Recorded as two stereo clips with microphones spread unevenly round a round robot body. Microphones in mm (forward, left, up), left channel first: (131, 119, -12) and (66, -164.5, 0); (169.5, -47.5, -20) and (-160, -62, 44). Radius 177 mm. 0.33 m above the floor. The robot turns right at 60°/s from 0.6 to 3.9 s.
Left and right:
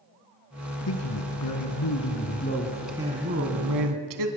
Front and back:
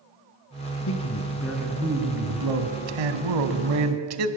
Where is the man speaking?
45° left, 2.5 m; by 4.3 s 130° right, 2.5 m.